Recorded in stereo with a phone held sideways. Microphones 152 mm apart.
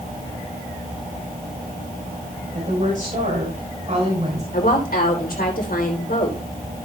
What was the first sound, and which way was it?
A woman speaking, 60° right (ahead or behind).